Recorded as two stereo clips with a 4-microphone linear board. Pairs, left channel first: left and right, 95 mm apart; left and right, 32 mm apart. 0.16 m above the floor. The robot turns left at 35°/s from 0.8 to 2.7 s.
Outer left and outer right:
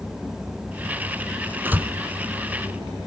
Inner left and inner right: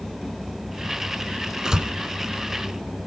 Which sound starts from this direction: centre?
A door slam, at 1.6 s.